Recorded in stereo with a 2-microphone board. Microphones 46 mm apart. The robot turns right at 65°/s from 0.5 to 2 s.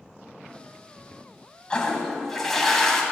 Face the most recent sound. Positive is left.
turn(degrees=10)  # may be behind; listen again after turning